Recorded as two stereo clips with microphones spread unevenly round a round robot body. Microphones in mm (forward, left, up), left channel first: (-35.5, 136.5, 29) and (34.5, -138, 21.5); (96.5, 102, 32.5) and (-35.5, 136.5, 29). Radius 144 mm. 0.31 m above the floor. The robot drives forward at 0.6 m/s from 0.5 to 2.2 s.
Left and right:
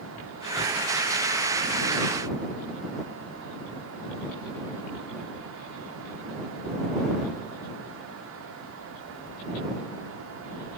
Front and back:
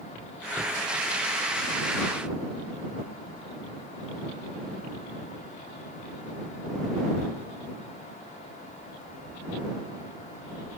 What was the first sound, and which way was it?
Only background noise.